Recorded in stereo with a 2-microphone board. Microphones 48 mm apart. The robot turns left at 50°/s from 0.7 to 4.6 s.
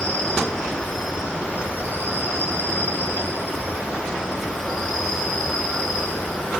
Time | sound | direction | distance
0.0 | an insect | 10° left | 1.5 m